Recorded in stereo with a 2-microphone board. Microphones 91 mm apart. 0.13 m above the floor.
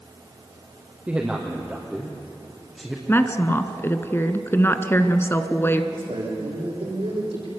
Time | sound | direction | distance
1.1 | a man speaking | 10° right (ahead or behind) | 3 m
3.1 | a woman speaking | 25° left (ahead or behind) | 1.3 m
5.9 | a man speaking | 80° right | 9 m